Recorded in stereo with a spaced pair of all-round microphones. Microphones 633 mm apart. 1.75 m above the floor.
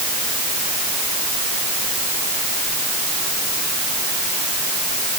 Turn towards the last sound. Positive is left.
No sound to turn to.